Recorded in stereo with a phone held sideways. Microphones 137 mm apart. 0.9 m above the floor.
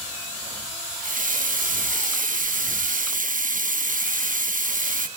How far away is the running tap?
About 0.8 m.